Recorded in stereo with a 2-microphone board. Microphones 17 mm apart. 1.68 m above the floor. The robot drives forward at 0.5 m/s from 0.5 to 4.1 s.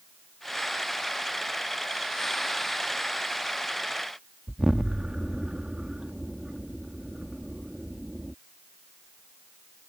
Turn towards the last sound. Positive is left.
turn(degrees=-45)  # may be behind; listen again after turning